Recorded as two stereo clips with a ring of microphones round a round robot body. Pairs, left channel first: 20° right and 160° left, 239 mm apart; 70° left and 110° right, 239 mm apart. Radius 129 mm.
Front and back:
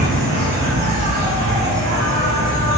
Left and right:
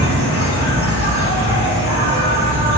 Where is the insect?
105° left, 1.1 m.